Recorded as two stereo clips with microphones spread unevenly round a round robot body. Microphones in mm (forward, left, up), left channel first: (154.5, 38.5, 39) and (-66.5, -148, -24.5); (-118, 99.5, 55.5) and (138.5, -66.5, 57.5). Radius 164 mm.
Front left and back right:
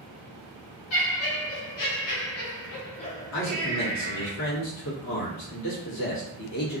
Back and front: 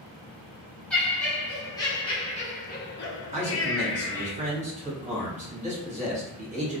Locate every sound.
0.9 s laughter: 60° left, 1.4 m; by 4.3 s 175° right, 0.8 m
3.3 s a man speaking: 30° left, 1.1 m